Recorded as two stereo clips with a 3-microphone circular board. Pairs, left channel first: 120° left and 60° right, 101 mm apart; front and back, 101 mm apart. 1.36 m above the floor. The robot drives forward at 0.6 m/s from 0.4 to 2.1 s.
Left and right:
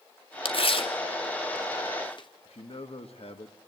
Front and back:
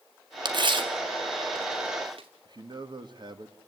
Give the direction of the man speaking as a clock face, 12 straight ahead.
7 o'clock.